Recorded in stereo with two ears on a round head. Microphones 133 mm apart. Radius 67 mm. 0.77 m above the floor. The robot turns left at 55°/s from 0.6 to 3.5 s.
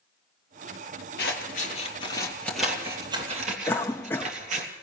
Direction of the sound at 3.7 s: 15° left (ahead or behind).